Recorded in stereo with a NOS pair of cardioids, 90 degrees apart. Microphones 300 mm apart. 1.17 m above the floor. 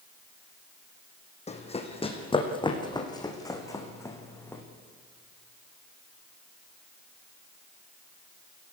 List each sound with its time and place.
1.5 s running footsteps: 20° left, 4 m; by 4.6 s 10° left, 5 m